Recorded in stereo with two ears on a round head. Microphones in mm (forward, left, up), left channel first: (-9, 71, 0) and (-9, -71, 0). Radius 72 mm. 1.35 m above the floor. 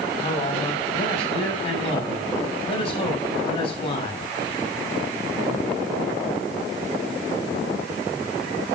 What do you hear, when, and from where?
0.2 s a man speaking: 40° left (ahead or behind), 6.5 m